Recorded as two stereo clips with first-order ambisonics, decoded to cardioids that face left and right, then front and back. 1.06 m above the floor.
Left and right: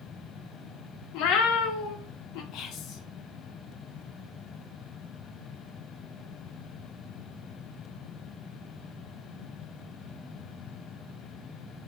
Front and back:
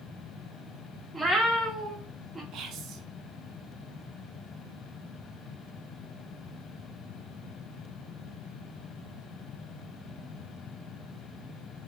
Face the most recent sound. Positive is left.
turn(degrees=135)